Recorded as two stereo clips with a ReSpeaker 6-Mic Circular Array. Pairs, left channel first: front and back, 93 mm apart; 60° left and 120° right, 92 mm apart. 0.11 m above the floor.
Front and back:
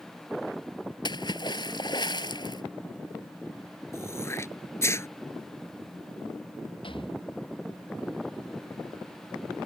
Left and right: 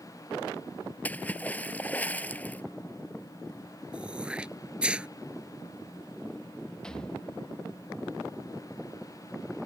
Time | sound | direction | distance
1.1 | a splash | 10° right | ?
3.9 | throat clearing | 45° right | ?
6.8 | a rattle | 20° right | ?